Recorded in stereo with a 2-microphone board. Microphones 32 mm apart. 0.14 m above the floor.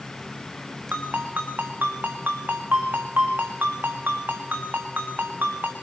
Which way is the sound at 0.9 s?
80° right.